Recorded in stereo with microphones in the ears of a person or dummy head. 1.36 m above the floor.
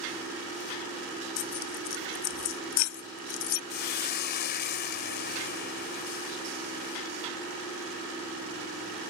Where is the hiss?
45° left (ahead or behind).